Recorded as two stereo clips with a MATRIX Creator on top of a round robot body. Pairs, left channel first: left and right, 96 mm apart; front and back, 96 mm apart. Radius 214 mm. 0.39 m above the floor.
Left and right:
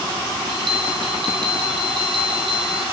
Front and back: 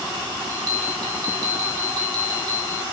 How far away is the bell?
About 2 m.